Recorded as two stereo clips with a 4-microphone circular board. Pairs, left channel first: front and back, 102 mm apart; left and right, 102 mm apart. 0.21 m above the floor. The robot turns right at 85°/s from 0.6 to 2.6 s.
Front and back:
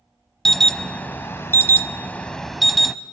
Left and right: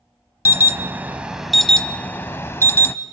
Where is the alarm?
80° right, 0.7 m; by 3.0 s 90° left, 0.7 m.